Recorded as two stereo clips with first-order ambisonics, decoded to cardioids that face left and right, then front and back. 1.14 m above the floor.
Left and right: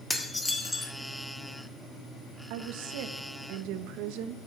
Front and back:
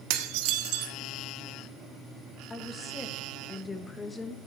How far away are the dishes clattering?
About 1.3 m.